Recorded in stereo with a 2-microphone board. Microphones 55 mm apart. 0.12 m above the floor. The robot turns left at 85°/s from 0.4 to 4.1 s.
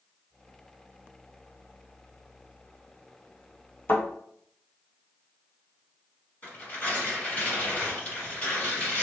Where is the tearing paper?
20° left (ahead or behind), 1.8 m.